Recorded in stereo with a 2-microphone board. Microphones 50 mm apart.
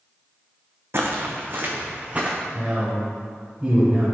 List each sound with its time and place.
0.9 s footsteps: 55° right (ahead or behind), 1.3 m; by 2.4 s 25° right (ahead or behind), 1.7 m
2.5 s a man speaking: 25° right (ahead or behind), 2 m